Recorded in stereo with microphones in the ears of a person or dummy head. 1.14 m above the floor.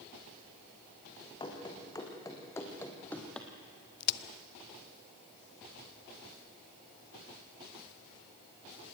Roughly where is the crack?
Left.